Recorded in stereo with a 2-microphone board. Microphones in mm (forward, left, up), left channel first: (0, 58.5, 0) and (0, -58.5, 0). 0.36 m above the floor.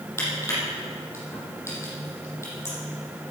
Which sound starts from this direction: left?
Crushing, at 0.2 s.